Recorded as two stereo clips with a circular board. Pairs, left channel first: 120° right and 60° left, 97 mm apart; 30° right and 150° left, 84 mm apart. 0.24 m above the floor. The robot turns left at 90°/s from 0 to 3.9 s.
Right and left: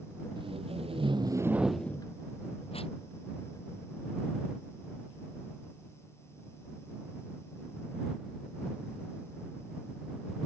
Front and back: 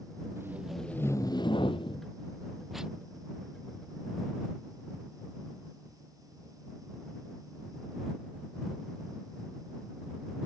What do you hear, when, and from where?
0.4 s tape being pulled: 95° left; by 3.0 s 145° right